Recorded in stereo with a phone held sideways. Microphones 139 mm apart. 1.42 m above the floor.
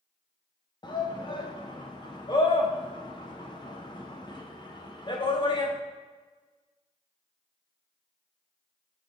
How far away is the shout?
About 1.0 m.